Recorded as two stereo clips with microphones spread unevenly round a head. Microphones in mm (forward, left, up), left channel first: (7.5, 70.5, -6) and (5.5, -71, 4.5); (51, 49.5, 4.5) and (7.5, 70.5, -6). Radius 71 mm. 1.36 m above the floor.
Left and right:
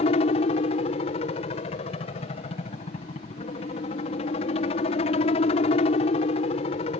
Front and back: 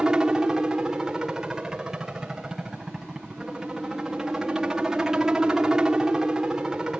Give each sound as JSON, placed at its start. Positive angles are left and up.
{"t": 0.0, "sound": "a helicopter", "azimuth_deg": 90}